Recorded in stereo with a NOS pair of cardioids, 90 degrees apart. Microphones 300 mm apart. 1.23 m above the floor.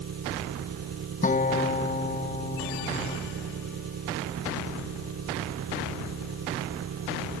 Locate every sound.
0.0 s an engine running: 55° right
1.2 s a guitar: 25° left